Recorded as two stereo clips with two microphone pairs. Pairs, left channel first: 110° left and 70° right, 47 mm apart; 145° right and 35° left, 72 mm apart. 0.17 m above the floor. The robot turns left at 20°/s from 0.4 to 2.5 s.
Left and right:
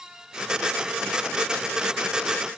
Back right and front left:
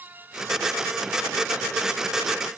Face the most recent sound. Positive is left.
No sound to turn to.